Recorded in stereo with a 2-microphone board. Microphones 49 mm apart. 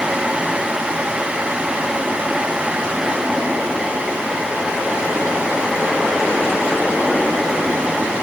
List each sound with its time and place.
Only background noise.